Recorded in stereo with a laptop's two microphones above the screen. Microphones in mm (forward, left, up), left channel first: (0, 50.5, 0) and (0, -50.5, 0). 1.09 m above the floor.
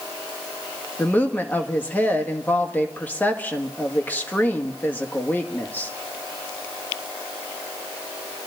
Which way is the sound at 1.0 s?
15° left (ahead or behind).